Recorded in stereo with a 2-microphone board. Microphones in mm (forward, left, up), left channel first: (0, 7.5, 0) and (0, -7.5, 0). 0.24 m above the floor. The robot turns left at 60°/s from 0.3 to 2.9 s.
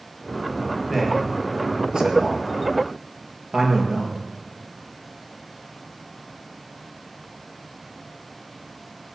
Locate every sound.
0.9 s a man speaking: 10° left (ahead or behind), 4 m; by 4.2 s 65° right (ahead or behind), 4 m